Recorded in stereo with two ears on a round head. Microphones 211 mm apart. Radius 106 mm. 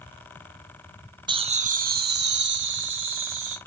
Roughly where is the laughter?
Right.